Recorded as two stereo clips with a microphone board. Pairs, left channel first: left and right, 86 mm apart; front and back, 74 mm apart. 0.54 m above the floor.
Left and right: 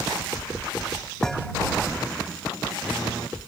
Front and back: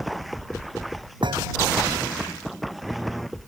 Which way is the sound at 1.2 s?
175° left.